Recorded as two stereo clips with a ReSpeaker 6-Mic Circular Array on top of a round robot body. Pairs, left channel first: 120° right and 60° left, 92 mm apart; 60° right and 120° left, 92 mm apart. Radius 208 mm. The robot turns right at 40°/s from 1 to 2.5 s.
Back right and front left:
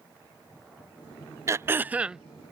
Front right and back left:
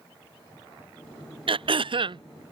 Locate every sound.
1.5 s throat clearing: 115° left; by 2.2 s 145° left